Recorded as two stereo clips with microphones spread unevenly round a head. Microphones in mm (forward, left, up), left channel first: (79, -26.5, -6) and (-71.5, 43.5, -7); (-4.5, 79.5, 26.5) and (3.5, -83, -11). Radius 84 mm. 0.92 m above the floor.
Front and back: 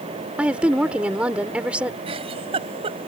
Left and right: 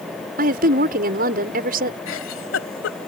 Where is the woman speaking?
120° right.